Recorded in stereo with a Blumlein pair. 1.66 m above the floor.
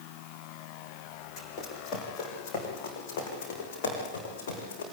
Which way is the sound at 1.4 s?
30° left.